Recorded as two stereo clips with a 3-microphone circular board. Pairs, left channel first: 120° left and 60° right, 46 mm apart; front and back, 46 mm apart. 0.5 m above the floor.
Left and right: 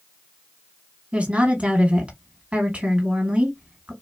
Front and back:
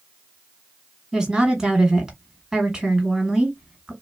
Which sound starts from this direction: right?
A woman speaking, at 1.1 s.